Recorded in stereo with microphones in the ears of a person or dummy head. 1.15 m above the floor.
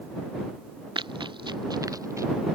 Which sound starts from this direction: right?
Running footsteps, at 0.9 s.